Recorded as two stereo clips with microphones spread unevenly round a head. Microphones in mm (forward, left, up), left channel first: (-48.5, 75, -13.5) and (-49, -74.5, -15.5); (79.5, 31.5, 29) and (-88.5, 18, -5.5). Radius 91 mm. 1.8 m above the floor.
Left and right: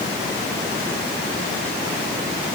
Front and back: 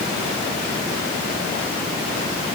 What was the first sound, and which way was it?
Only background noise.